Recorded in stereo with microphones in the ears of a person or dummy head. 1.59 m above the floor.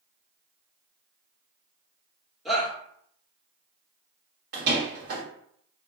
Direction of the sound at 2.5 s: Centre (ahead or behind).